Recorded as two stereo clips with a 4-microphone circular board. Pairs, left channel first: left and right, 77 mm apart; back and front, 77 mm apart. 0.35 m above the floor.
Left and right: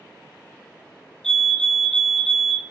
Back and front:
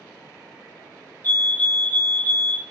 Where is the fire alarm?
155° left, 2.5 m.